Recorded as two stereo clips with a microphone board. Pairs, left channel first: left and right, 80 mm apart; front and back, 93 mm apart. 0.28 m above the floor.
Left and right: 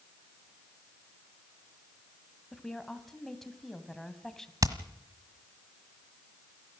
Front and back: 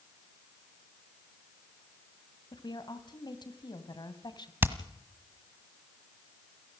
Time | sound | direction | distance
2.5 | a woman speaking | 5° left | 2 m
4.6 | hammering | 115° right | 1.4 m